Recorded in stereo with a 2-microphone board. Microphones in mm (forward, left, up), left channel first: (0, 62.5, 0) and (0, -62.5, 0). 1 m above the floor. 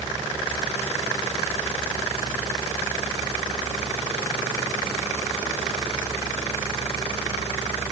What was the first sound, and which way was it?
Only background noise.